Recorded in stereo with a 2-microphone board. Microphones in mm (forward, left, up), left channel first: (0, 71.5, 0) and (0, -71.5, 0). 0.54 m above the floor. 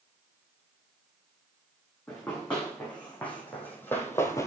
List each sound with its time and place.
2.1 s running footsteps: 5° left (ahead or behind), 3 m; by 4.5 s 20° left (ahead or behind), 0.7 m